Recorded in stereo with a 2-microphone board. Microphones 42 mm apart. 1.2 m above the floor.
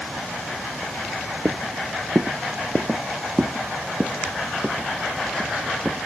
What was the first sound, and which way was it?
Footsteps, 50° right (ahead or behind).